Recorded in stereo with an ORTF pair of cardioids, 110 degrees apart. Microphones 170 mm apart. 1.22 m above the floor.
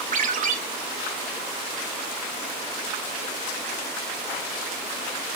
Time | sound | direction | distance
0.1 | a ringtone | 50° right | 2.5 m